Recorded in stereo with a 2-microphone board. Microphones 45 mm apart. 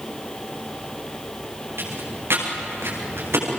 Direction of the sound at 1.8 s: 65° right (ahead or behind).